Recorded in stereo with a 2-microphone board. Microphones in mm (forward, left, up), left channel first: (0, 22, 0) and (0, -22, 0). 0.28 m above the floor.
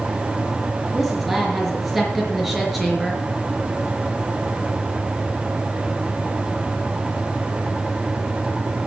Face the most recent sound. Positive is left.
turn(degrees=-5)  # may be behind; listen again after turning